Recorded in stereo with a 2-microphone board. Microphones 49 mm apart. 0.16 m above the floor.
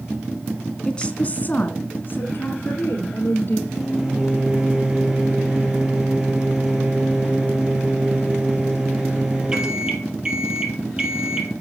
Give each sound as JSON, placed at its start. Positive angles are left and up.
{"t": 0.8, "sound": "a woman speaking", "side_deg": 15, "distance_m": 1.5}
{"t": 3.7, "sound": "a microwave", "side_deg": -15, "distance_m": 2.5}